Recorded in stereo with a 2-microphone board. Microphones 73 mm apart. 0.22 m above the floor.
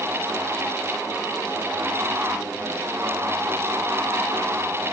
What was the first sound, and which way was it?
Only background noise.